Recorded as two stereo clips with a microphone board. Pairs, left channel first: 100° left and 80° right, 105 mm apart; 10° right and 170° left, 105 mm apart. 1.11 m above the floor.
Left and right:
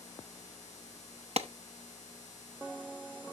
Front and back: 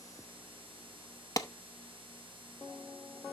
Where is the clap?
65° right, 0.8 m.